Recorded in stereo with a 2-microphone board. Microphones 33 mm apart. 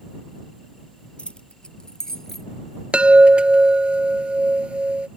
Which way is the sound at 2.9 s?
35° right (ahead or behind).